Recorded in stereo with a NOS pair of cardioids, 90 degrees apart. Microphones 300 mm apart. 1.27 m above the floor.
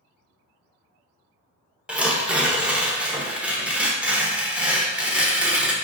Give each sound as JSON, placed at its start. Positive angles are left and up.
{"t": 1.9, "sound": "tearing paper", "azimuth_deg": -5, "distance_m": 0.6}